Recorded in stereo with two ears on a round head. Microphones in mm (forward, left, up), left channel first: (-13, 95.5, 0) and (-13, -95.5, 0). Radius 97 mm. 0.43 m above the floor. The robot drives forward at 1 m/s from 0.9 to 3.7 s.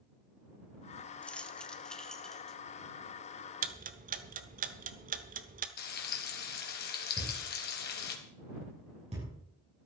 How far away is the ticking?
About 1.1 m.